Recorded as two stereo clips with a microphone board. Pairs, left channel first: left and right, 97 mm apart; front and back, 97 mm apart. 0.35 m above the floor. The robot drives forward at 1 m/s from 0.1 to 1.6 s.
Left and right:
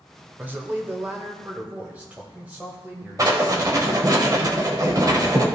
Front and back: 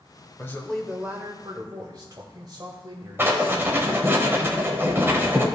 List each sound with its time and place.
0.4 s a man speaking: 40° right, 1.0 m; by 3.8 s 160° right, 1.2 m
3.2 s writing: 125° right, 1.2 m